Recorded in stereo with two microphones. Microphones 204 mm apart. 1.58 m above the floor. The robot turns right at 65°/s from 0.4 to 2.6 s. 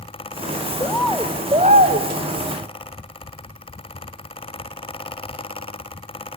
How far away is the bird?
About 1.0 m.